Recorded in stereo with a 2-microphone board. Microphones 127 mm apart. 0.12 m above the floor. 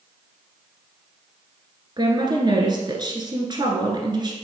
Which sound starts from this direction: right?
A woman speaking, at 2.0 s.